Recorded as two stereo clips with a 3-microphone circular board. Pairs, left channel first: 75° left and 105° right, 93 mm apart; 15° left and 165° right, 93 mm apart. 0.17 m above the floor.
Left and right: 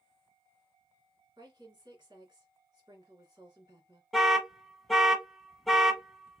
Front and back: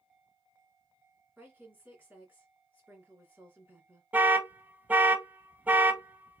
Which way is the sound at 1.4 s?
100° right.